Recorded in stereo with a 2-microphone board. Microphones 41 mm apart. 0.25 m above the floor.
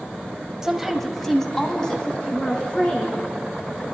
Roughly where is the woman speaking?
Centre.